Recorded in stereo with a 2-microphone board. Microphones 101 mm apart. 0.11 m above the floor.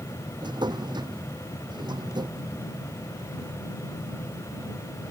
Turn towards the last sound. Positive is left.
turn(degrees=-45)  # may be behind; listen again after turning